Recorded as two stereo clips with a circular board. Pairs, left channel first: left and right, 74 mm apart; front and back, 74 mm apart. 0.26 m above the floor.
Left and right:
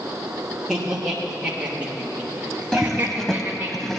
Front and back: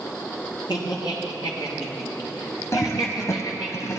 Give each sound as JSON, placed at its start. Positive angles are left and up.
{"t": 0.7, "sound": "laughter", "azimuth_deg": -5, "distance_m": 5.5}
{"t": 2.7, "sound": "a toilet flushing", "azimuth_deg": 5, "distance_m": 1.0}